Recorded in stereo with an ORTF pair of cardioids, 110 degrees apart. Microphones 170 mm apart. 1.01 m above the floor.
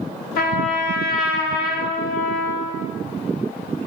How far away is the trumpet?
About 0.6 m.